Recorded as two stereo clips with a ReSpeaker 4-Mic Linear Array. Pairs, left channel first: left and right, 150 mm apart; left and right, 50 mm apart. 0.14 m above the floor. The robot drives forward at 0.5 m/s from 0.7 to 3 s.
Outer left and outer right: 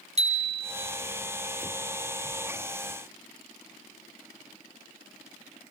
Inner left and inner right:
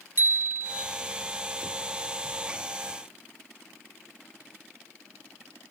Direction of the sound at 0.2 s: 45° right (ahead or behind).